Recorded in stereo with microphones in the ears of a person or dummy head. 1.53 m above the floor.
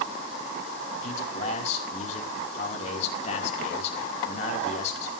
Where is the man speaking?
45° left (ahead or behind), 5 m.